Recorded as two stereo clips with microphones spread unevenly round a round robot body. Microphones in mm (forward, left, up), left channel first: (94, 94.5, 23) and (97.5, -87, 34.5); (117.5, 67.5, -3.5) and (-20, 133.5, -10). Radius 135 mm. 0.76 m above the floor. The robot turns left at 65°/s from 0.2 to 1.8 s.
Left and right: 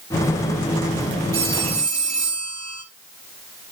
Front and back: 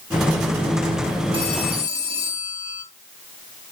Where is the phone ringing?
100° right, 2.5 m; by 2.8 s 130° right, 2.5 m.